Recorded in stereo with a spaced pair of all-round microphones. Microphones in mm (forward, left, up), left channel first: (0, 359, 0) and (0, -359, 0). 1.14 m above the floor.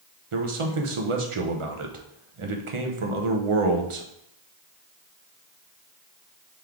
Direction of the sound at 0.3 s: 45° right (ahead or behind).